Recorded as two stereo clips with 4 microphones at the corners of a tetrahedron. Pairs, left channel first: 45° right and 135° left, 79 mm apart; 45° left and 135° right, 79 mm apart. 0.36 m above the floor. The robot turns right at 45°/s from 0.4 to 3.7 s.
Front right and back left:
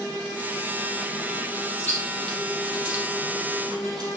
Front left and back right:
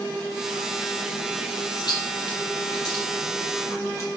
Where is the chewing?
20° left, 4.5 m; by 4.1 s 105° left, 4.5 m.